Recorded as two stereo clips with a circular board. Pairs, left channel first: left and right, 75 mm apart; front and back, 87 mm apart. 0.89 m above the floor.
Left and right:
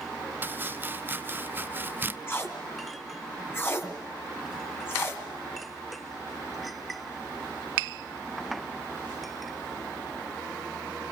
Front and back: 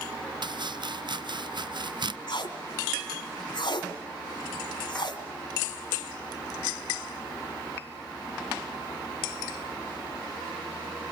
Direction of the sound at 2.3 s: 30° left.